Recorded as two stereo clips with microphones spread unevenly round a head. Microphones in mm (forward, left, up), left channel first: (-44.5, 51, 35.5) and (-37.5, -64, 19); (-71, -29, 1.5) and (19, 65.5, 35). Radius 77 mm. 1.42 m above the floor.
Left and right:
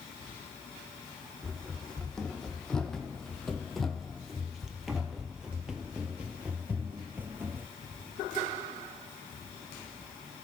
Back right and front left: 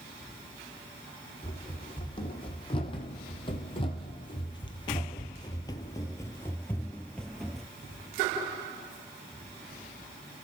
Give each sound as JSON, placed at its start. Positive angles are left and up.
{"t": 1.4, "sound": "running footsteps", "azimuth_deg": 175, "distance_m": 3.0}